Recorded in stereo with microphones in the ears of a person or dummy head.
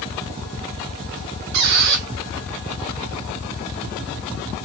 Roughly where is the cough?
I don't hear a cough.